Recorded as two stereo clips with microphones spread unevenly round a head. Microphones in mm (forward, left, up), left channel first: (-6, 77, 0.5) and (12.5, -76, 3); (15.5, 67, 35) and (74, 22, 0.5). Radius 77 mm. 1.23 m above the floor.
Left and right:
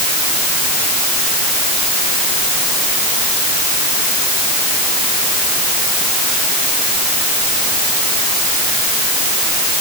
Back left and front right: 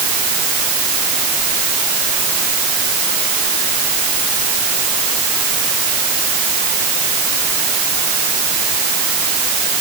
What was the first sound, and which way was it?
Only background noise.